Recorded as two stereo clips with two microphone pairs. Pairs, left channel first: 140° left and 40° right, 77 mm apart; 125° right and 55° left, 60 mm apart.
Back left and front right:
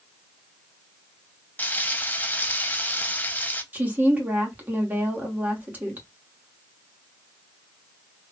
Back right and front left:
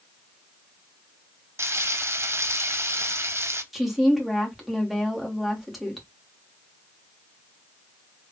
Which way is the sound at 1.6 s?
80° left.